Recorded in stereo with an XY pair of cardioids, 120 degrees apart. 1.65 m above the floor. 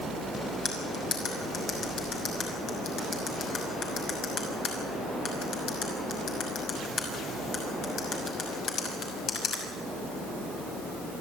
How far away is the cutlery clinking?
About 6 m.